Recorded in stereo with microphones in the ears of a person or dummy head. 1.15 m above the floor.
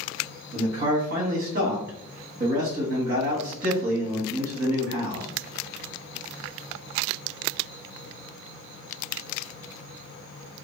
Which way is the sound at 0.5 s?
45° right (ahead or behind).